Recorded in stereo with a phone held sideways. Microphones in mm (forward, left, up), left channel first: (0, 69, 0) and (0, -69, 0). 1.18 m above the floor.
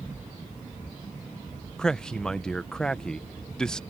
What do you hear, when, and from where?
1.8 s a man speaking: 5° left (ahead or behind)